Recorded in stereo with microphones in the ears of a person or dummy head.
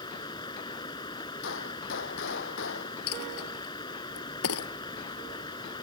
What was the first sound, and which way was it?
Running water, 20° left (ahead or behind).